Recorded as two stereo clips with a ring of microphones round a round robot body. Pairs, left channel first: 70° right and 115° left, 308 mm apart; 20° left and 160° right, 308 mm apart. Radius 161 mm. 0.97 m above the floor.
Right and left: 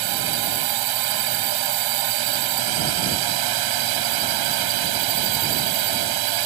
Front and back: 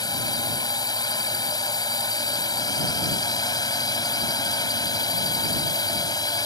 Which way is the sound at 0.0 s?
100° left.